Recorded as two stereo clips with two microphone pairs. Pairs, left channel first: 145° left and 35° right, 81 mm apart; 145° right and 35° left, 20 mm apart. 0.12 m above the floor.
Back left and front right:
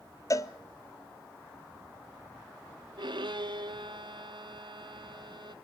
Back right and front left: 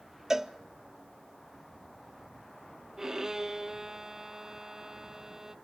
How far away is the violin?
About 0.8 m.